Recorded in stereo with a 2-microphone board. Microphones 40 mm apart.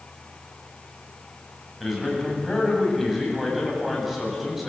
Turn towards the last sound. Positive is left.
turn(degrees=-5)  # may be behind; listen again after turning